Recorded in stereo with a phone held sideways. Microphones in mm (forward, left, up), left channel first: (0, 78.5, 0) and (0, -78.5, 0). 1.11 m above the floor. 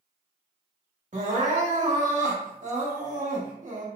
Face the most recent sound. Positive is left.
turn(degrees=-55)  # may be behind; listen again after turning